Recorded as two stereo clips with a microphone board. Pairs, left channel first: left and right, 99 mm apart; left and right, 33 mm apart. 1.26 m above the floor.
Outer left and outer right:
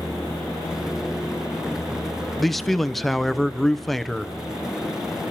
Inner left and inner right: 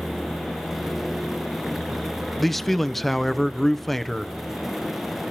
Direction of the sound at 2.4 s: Centre (ahead or behind).